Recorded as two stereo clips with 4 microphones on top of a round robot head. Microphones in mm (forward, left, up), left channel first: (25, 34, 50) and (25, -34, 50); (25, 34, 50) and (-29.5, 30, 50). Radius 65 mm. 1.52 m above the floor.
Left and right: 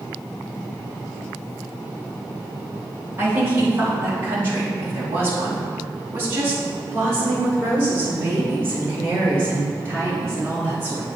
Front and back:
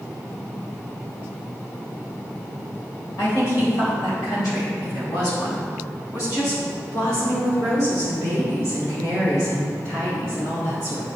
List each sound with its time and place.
3.2 s a woman speaking: 35° right, 3 m; by 11.1 s 30° right, 7 m